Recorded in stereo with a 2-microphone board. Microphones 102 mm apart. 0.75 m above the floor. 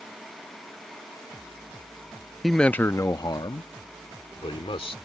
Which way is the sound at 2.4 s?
Centre (ahead or behind).